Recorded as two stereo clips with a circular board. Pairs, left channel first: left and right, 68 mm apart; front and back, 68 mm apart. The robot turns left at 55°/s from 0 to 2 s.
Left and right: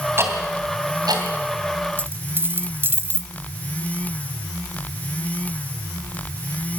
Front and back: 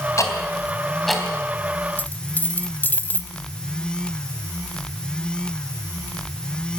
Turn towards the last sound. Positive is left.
turn(degrees=-50)